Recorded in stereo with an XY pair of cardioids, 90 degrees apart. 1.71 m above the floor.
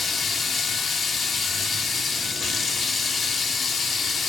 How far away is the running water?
About 0.8 m.